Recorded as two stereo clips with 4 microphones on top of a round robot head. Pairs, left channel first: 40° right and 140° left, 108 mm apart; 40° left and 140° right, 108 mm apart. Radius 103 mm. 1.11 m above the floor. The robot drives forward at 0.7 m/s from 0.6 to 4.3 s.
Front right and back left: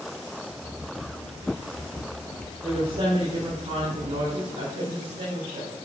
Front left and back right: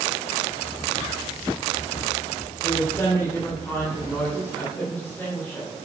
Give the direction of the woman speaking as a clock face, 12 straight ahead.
9 o'clock.